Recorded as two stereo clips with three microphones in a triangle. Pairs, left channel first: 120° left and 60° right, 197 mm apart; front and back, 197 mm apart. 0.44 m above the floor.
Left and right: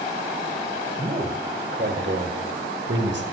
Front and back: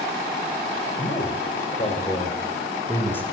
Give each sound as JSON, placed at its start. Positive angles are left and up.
{"t": 1.0, "sound": "a man speaking", "azimuth_deg": -25, "distance_m": 1.6}